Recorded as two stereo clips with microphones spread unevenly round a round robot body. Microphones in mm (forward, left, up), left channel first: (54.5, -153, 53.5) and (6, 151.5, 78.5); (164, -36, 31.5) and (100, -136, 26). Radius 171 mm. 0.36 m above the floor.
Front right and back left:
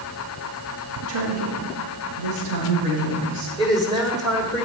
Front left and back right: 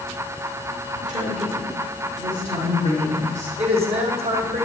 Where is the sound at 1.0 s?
150° left, 4.5 m; by 3.5 s 125° left, 5 m.